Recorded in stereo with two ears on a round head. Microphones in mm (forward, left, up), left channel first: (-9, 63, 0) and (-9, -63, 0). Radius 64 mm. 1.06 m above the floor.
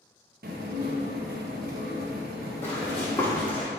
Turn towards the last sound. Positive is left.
turn(degrees=10)  # may be behind; listen again after turning